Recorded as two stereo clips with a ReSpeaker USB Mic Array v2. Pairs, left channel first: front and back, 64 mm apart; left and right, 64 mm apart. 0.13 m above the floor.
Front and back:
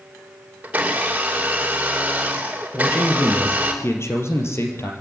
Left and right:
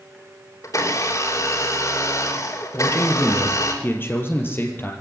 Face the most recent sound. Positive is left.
turn(degrees=40)